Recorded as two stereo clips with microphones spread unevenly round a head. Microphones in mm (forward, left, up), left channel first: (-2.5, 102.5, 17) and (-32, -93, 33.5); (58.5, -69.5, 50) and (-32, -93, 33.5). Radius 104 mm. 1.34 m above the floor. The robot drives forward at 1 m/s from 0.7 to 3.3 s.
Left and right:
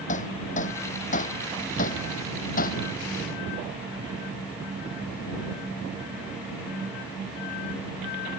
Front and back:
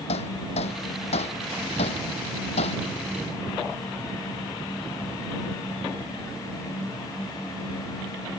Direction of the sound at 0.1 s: 25° left.